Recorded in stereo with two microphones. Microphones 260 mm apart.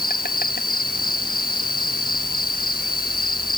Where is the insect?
35° left (ahead or behind).